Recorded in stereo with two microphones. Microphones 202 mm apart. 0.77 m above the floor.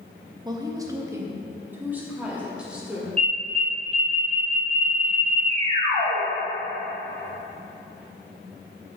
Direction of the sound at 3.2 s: 30° right (ahead or behind).